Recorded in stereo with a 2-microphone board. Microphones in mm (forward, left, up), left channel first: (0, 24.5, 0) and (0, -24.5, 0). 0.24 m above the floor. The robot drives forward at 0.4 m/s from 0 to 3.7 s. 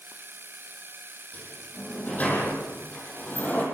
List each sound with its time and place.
1.3 s a sliding door: 30° left (ahead or behind), 8.5 m; by 3.6 s 35° left (ahead or behind), 7.5 m